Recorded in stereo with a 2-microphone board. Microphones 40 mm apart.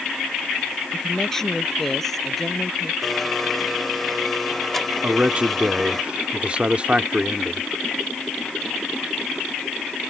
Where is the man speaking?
30° right (ahead or behind).